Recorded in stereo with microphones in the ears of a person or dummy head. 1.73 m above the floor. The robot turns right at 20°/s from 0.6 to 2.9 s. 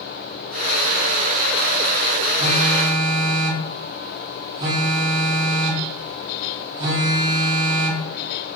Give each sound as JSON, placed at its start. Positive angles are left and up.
{"t": 2.4, "sound": "a phone buzzing", "side_deg": -25, "distance_m": 2.0}